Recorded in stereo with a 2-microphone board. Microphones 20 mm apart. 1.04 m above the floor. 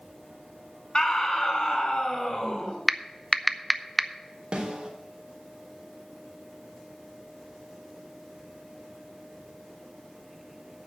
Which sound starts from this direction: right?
A snare drum, at 4.5 s.